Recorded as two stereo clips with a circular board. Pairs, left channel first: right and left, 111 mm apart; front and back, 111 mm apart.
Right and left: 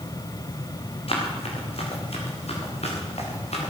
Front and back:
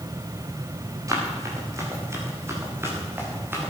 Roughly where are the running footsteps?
Behind right.